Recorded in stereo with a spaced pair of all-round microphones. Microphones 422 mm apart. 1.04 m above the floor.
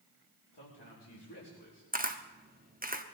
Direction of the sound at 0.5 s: 70° left (ahead or behind).